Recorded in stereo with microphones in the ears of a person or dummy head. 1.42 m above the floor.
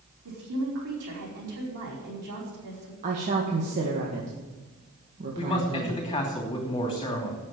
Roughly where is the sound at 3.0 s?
Right.